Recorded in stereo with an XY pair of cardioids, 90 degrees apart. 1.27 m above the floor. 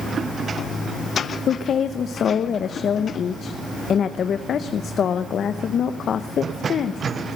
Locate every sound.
1.5 s a woman speaking: 60° left, 0.7 m